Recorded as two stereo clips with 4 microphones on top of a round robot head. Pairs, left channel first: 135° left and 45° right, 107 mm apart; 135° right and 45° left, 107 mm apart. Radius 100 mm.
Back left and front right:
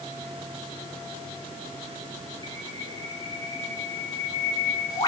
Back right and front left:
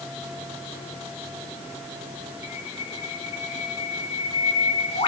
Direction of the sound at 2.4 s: 170° right.